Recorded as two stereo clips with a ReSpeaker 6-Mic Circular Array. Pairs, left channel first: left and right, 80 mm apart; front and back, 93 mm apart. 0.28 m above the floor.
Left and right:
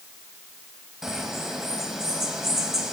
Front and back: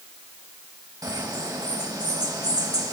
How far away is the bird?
About 1.5 m.